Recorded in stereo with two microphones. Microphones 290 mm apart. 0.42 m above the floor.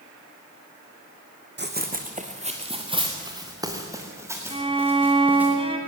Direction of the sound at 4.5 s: 20° right (ahead or behind).